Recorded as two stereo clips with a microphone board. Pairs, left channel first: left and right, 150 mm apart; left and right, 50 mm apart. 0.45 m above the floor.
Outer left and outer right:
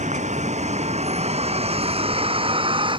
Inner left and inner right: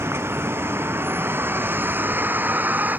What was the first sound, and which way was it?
A vehicle, 50° right (ahead or behind).